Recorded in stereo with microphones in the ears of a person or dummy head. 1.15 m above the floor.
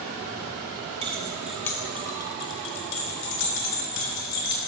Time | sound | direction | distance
1.0 | keys jangling | 25° right (ahead or behind) | 0.6 m